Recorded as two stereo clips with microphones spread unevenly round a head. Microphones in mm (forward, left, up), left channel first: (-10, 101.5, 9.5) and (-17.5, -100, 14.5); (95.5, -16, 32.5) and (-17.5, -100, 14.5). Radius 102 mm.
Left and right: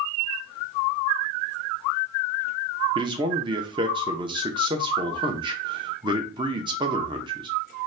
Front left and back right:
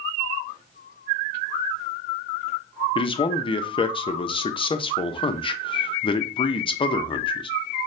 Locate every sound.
3.0 s a man speaking: 25° right, 0.6 m